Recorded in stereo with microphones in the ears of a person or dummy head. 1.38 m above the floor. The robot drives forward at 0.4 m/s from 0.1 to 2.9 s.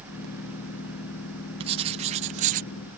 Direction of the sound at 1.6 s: 25° right (ahead or behind).